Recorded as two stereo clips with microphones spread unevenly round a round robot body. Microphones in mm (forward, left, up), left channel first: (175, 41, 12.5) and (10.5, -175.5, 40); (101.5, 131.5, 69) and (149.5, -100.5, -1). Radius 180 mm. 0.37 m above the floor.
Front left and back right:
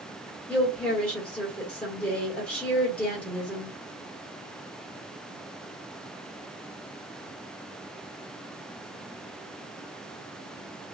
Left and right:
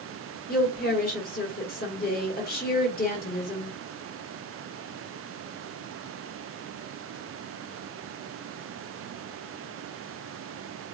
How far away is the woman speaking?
About 1.3 m.